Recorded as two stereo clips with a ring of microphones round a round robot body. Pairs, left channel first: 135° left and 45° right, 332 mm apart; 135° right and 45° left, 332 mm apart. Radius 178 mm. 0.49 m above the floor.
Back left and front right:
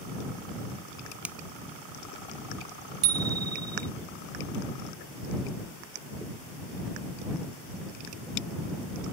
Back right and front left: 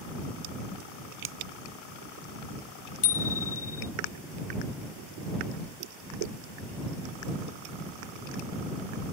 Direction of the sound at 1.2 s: 40° left.